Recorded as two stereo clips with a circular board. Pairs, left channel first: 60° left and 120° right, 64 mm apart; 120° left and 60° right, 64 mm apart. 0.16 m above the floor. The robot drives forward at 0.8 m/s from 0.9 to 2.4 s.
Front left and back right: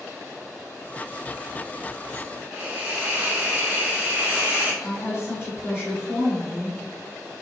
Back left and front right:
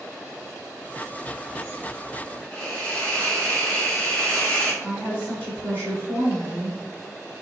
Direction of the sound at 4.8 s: 80° left.